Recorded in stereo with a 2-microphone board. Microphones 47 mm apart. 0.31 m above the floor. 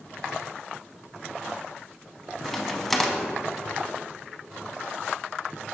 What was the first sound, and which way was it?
A crack, 5° left (ahead or behind).